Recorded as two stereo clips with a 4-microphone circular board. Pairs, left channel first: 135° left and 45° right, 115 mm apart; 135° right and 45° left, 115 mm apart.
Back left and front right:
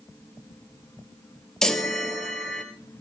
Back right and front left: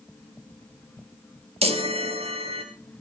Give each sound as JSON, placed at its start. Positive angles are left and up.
{"t": 1.6, "sound": "a chime", "azimuth_deg": 50, "distance_m": 2.0}